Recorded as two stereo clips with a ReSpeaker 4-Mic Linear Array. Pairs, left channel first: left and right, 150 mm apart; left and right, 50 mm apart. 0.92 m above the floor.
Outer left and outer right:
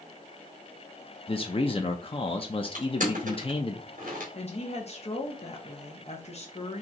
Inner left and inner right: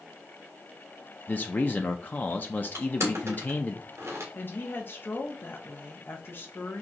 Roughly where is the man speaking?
Left.